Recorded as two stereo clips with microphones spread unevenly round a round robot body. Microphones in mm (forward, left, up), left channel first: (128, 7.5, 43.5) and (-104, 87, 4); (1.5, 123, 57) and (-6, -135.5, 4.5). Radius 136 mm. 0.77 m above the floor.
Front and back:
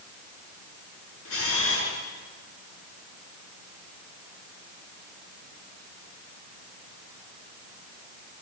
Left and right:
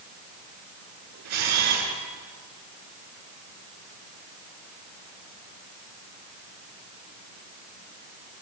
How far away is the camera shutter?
About 7.5 m.